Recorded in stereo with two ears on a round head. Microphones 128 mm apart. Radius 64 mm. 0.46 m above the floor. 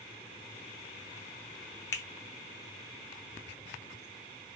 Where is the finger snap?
20° left (ahead or behind), 0.7 m.